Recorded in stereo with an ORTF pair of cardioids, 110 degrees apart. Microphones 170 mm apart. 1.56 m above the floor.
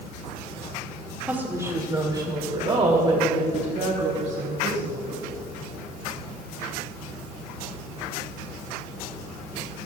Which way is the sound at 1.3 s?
10° right.